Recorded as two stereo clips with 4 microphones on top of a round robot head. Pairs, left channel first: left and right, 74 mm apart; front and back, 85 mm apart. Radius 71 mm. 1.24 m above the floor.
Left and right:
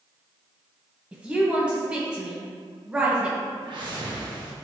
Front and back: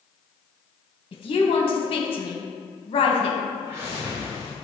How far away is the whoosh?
About 1.2 m.